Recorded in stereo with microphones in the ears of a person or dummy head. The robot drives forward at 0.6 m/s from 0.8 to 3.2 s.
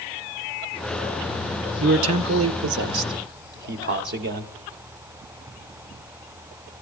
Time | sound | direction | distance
1.8 | a man speaking | 75° right (ahead or behind) | 1.0 m